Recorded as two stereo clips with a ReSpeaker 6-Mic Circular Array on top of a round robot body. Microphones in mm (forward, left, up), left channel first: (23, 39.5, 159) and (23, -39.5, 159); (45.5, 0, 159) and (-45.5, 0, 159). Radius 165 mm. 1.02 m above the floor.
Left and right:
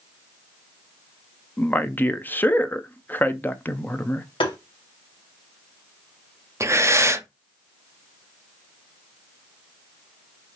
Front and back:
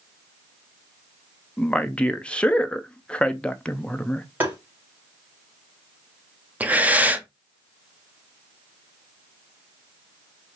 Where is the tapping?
110° left, 0.7 m.